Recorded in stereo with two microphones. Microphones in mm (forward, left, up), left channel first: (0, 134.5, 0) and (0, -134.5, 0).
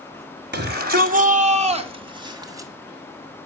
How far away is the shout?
About 1.8 m.